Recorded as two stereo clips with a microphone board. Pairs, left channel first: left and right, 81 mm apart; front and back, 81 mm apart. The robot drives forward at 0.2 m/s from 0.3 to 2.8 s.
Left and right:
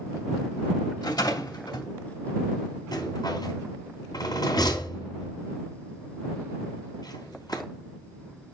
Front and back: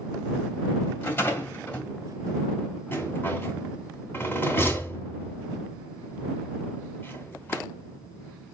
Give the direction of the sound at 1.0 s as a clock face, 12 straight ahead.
10 o'clock.